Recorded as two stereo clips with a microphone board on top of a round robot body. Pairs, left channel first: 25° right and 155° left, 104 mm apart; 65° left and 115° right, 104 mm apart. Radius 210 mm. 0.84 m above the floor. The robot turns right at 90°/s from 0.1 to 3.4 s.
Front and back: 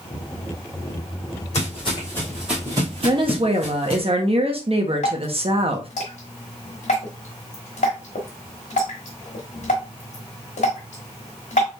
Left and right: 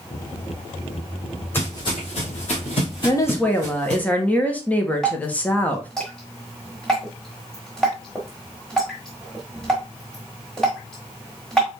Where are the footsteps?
5° right, 2.0 m; by 4.0 s 65° left, 0.8 m.